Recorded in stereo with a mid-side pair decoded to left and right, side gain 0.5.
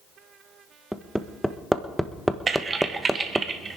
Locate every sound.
0.9 s hammering: straight ahead, 1.1 m
2.5 s typing on a keyboard: 35° right, 1.4 m